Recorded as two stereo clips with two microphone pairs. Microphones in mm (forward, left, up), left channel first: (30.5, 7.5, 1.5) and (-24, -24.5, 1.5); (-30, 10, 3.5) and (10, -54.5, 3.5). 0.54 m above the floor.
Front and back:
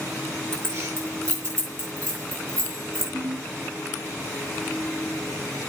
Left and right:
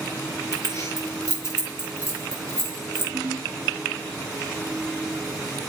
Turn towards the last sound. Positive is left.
turn(degrees=-115)